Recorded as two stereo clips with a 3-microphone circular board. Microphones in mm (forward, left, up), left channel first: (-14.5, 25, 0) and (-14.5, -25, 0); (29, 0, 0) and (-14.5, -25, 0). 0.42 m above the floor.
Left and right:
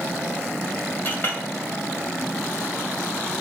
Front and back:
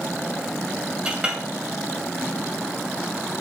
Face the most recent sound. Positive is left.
turn(degrees=140)